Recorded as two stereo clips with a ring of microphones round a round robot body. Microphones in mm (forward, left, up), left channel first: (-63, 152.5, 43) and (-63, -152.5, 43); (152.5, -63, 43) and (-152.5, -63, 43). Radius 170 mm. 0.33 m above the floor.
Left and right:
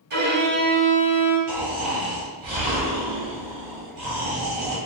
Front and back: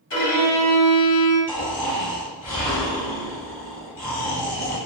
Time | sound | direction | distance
0.1 | a violin | 35° right | 2.0 m
1.5 | snoring | 65° right | 1.6 m